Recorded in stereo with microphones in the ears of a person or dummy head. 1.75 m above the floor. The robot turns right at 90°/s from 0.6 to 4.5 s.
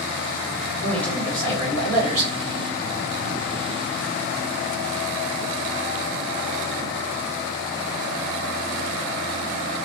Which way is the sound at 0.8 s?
155° left.